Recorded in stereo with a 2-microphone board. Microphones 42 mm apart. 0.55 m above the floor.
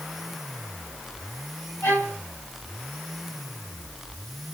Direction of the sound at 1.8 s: 75° left (ahead or behind).